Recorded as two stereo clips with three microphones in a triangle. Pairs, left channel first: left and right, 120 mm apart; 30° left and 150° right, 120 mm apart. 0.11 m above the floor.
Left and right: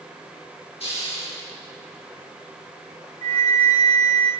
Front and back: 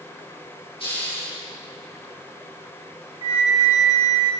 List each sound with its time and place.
0.8 s a hiss: 65° left, 6.5 m
3.2 s a flute: 100° right, 3 m